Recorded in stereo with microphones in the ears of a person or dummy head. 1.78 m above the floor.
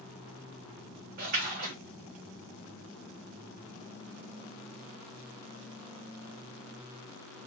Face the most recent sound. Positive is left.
turn(degrees=-50)  # may be behind; listen again after turning